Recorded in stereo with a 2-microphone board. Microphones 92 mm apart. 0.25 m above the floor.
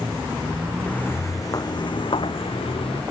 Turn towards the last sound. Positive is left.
turn(degrees=80)